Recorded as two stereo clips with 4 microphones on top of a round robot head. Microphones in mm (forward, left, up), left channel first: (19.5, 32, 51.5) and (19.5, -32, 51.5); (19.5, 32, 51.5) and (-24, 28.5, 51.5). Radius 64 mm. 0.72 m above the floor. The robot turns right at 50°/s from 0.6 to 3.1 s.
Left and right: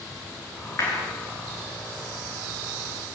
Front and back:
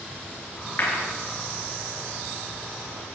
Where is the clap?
45° left, 8.5 m; by 1.0 s 60° left, 8.5 m.